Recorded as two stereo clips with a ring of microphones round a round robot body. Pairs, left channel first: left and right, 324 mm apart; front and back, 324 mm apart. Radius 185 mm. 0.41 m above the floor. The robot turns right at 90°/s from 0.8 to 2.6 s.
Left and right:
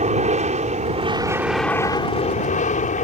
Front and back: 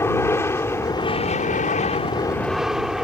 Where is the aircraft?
70° right; by 3.0 s 95° left.